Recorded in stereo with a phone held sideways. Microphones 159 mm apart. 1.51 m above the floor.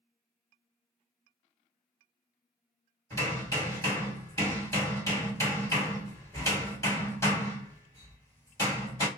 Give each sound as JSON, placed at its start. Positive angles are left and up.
{"t": 3.1, "sound": "hammering", "side_deg": 20, "distance_m": 1.9}